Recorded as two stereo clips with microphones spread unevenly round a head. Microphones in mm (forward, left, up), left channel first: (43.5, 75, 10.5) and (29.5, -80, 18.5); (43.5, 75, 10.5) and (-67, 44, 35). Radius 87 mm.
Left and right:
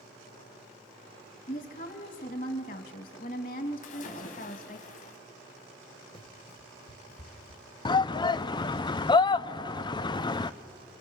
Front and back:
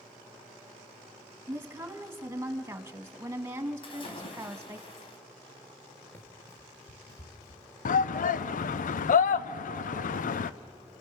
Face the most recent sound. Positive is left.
turn(degrees=20)